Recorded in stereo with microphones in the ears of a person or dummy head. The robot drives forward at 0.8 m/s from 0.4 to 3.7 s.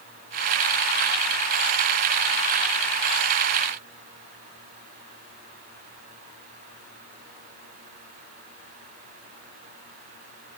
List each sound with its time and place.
Only background noise.